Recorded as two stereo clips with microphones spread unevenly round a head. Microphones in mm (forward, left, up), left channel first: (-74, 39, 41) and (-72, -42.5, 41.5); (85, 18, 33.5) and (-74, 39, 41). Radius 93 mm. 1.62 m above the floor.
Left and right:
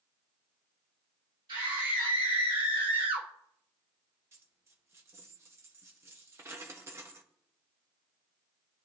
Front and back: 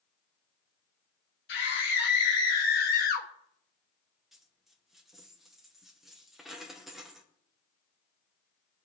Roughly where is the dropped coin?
Right.